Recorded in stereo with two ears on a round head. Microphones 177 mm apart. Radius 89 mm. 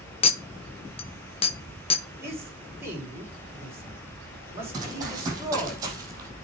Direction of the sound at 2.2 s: 15° right (ahead or behind).